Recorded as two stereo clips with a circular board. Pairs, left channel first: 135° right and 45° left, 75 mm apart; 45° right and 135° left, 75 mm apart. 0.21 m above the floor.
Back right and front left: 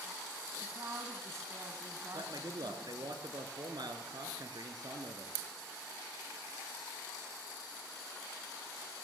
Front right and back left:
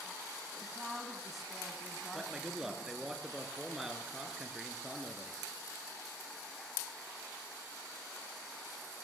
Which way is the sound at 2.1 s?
50° left.